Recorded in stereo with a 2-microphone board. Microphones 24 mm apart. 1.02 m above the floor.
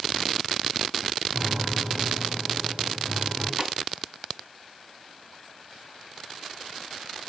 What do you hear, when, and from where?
1.3 s a piano: 80° right, 4.5 m
3.6 s a snare drum: 30° right (ahead or behind), 3.5 m